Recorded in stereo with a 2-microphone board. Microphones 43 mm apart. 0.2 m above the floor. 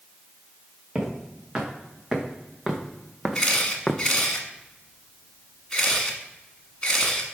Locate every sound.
0.9 s footsteps: 15° right (ahead or behind), 3 m; by 4.0 s 10° left (ahead or behind), 0.7 m
3.4 s a camera shutter: 15° left (ahead or behind), 1.4 m